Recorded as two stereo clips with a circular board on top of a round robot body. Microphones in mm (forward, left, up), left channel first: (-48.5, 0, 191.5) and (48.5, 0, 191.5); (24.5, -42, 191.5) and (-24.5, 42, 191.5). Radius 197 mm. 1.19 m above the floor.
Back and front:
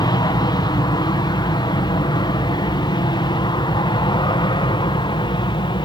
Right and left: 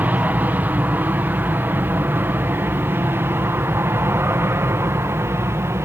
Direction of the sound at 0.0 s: 175° right.